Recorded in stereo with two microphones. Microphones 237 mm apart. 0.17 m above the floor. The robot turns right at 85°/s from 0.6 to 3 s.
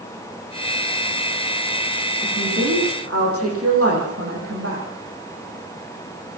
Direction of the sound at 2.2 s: 140° right.